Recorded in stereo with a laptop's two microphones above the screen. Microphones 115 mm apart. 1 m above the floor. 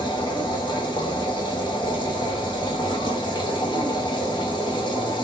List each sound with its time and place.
0.0 s a machine running: 40° left (ahead or behind), 1.3 m